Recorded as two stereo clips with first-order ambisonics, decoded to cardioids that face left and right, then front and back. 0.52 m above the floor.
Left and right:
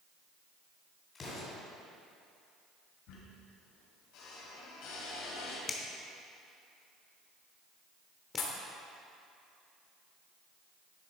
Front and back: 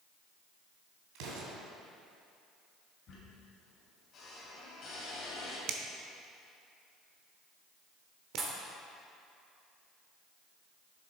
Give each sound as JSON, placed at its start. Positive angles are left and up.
{"t": 1.1, "sound": "an explosion", "azimuth_deg": 160, "distance_m": 2.5}
{"t": 3.1, "sound": "a squeak", "azimuth_deg": 60, "distance_m": 2.5}
{"t": 5.7, "sound": "a finger snap", "azimuth_deg": 160, "distance_m": 0.9}
{"t": 8.4, "sound": "a pop", "azimuth_deg": 110, "distance_m": 1.3}